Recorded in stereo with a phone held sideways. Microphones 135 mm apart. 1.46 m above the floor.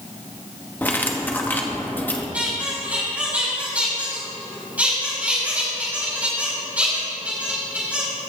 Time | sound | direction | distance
0.8 | cutlery clinking | 15° left (ahead or behind) | 1.0 m
2.3 | a squeak | 10° right (ahead or behind) | 4 m